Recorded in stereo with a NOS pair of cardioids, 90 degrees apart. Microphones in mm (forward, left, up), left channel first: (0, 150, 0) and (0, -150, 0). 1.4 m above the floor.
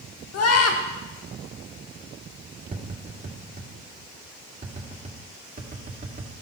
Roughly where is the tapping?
Ahead right.